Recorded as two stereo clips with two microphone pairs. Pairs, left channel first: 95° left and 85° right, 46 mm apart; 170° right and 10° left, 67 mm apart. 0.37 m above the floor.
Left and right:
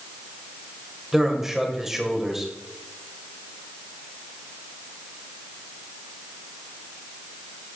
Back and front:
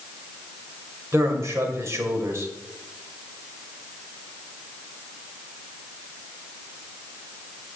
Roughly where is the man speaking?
Ahead.